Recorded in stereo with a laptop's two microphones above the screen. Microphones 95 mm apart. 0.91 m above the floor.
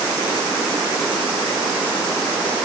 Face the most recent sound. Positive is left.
No sound to turn to.